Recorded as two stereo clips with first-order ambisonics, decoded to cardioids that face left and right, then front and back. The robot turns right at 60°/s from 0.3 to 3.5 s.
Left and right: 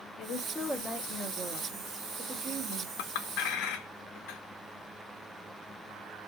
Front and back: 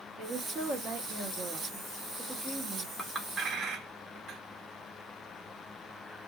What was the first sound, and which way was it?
A woman speaking, 140° left.